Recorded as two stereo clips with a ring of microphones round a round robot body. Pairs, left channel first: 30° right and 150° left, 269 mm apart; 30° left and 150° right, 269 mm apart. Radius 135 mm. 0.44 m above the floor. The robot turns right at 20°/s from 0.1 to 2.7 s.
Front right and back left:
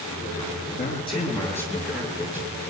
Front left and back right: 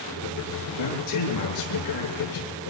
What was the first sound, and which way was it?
A man speaking, 35° left.